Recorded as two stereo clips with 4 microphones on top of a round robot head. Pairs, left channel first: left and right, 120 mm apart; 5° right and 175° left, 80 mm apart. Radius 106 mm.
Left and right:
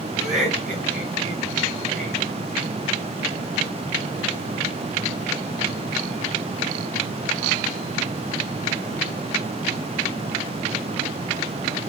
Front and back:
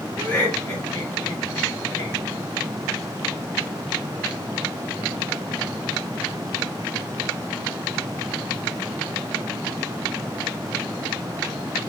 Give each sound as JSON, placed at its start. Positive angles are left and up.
{"t": 0.1, "sound": "laughter", "azimuth_deg": -70, "distance_m": 3.5}